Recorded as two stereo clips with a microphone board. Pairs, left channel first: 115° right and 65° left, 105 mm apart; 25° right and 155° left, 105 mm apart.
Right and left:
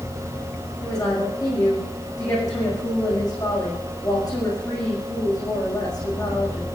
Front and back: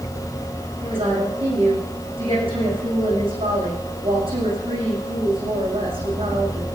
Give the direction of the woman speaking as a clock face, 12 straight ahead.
6 o'clock.